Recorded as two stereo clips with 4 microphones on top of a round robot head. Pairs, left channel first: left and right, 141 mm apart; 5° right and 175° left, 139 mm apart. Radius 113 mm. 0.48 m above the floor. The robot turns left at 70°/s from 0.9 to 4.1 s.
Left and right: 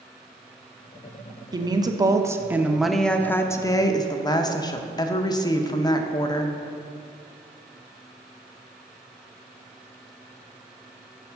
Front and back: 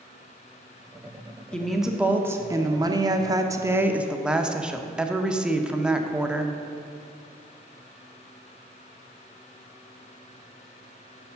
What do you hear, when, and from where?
1.5 s a woman speaking: 85° right, 0.8 m; by 6.5 s 95° left, 0.8 m